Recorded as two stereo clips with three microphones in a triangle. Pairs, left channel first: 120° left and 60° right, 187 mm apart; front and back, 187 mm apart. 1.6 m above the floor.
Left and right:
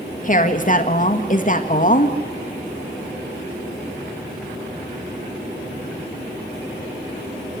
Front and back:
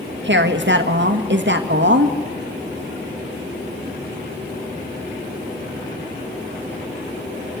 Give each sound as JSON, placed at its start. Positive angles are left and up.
{"t": 0.2, "sound": "a woman speaking", "azimuth_deg": 165, "distance_m": 1.8}